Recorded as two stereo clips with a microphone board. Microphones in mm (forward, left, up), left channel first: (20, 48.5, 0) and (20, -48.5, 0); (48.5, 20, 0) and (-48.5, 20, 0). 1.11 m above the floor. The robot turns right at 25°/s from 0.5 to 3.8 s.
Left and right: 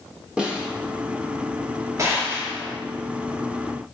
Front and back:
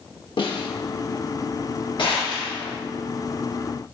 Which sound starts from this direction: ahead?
A snare drum, at 0.4 s.